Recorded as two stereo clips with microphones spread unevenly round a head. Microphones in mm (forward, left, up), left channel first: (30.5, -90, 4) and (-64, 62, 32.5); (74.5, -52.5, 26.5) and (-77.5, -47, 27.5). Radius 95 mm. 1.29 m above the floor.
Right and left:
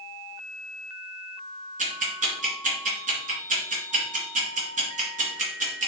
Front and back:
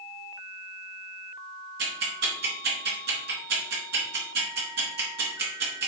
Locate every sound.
1.8 s ticking: 160° left, 2.5 m